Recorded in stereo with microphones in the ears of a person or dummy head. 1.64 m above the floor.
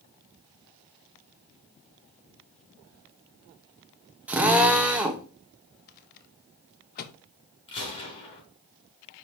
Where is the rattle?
50° left (ahead or behind), 1.0 m.